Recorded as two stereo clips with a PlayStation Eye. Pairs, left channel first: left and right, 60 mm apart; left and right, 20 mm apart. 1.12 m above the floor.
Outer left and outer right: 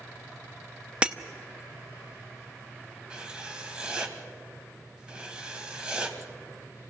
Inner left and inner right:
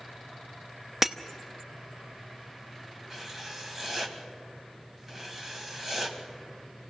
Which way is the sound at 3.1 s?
15° right (ahead or behind).